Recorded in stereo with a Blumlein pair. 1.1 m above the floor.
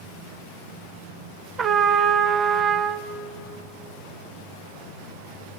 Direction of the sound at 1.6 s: 25° right.